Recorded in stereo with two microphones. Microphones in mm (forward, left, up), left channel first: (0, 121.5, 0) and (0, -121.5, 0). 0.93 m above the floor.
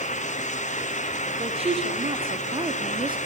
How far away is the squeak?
No squeak in this recording.